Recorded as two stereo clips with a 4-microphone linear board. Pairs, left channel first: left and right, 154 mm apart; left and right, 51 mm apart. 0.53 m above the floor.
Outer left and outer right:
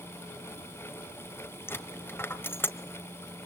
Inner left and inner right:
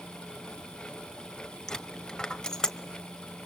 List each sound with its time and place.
1.7 s a dropped coin: 15° left (ahead or behind), 1.2 m